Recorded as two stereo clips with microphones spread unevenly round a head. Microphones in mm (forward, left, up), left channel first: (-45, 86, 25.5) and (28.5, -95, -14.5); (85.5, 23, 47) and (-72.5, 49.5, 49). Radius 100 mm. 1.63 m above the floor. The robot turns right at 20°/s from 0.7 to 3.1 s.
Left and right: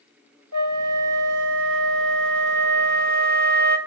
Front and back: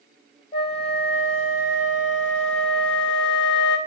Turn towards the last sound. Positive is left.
turn(degrees=-20)